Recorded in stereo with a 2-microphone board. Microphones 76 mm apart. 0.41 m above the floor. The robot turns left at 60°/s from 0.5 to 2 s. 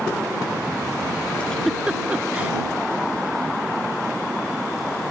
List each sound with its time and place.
1.4 s a giggle: 20° left (ahead or behind); by 2.5 s 20° right (ahead or behind)